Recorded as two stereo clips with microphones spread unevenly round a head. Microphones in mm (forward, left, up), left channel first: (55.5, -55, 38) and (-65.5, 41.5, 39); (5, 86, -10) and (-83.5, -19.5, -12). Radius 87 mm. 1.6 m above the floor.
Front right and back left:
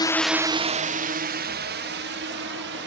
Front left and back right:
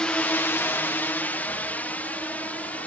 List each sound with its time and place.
0.0 s a drone: 30° right; by 2.9 s 130° left